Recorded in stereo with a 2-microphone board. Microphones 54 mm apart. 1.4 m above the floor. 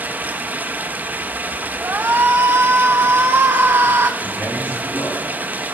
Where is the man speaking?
55° left (ahead or behind), 4.5 m.